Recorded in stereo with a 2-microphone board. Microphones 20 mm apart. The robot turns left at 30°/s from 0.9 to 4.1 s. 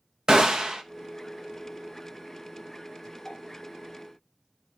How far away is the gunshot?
About 0.7 m.